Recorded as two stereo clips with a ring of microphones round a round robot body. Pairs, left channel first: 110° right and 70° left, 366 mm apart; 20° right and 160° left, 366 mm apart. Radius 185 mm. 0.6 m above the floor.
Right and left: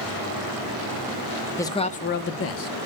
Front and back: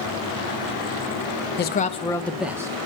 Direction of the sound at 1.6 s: 40° right.